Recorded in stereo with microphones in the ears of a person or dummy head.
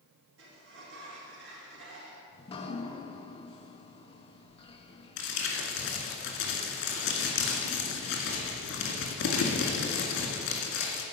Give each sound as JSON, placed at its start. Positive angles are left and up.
{"t": 0.4, "sound": "a sliding door", "side_deg": -80, "distance_m": 1.9}
{"t": 2.3, "sound": "dripping", "side_deg": 25, "distance_m": 0.7}
{"t": 5.2, "sound": "crumpling", "side_deg": 70, "distance_m": 2.0}